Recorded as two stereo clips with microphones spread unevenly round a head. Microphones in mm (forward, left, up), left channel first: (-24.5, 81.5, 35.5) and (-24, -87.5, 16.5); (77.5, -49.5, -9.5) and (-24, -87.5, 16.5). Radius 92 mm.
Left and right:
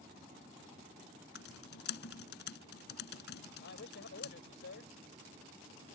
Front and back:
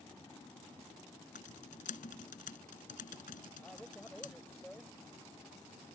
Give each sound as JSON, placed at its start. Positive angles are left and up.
{"t": 1.4, "sound": "typing on a keyboard", "azimuth_deg": 60}
{"t": 3.6, "sound": "a man speaking", "azimuth_deg": 110}